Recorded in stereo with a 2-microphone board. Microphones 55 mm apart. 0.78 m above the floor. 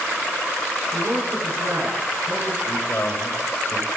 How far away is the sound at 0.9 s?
About 10 m.